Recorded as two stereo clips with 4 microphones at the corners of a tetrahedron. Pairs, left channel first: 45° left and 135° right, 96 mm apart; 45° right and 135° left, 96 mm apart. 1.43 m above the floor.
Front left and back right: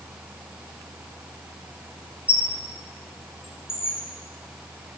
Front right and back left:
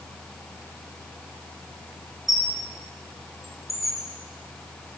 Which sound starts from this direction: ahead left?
A squeak, at 2.3 s.